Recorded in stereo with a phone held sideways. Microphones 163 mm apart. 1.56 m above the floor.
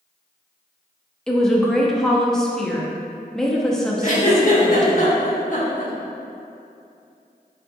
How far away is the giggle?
About 1.0 m.